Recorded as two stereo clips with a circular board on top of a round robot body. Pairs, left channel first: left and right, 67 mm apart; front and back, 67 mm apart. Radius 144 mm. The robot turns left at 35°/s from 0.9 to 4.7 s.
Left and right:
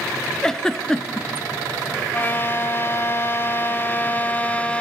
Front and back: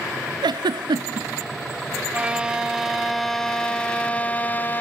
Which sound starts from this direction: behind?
A giggle, at 0.4 s.